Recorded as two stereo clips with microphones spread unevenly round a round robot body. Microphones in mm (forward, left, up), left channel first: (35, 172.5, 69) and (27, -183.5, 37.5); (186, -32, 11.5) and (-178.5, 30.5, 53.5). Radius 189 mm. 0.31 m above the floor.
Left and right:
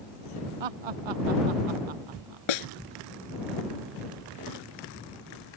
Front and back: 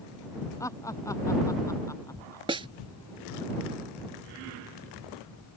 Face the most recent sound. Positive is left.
turn(degrees=95)